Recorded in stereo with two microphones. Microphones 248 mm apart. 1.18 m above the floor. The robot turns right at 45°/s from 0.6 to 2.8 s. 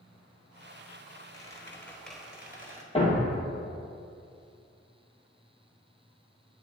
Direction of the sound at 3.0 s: 20° left (ahead or behind).